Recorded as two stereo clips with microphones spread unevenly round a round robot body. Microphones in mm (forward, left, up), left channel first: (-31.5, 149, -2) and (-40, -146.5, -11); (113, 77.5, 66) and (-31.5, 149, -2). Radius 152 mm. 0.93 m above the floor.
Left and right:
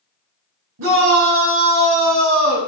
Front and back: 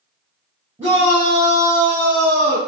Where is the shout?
130° right, 5 m; by 2.6 s 115° right, 6 m.